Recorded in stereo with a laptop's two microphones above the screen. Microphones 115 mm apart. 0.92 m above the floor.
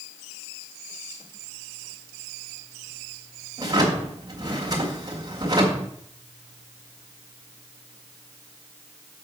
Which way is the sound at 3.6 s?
30° right (ahead or behind).